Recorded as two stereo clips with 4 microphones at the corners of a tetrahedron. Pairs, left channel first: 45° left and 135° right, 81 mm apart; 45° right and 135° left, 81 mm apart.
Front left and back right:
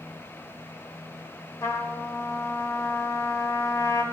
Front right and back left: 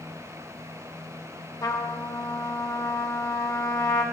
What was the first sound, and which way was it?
A trumpet, 5° right.